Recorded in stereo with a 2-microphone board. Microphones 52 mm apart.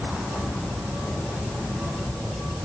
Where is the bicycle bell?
No bicycle bell in this recording.